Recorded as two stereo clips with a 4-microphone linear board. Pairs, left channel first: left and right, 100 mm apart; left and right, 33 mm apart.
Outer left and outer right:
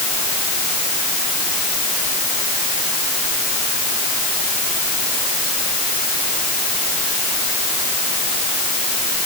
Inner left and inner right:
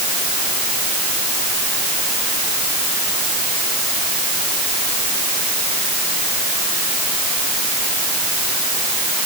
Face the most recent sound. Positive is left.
No sound to turn to.